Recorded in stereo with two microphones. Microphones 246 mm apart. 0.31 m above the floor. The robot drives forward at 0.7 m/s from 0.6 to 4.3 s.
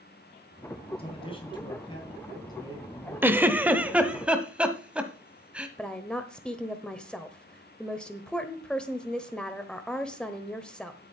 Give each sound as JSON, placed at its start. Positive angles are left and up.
{"t": 1.0, "sound": "a man speaking", "side_deg": 25, "distance_m": 2.5}
{"t": 3.2, "sound": "a giggle", "side_deg": -10, "distance_m": 0.7}
{"t": 5.8, "sound": "a woman speaking", "side_deg": 5, "distance_m": 1.0}